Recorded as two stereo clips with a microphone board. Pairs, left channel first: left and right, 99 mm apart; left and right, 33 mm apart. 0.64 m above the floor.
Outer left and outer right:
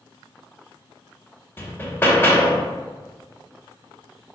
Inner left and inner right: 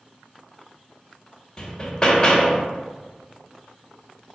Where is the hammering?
25° left (ahead or behind), 0.7 m.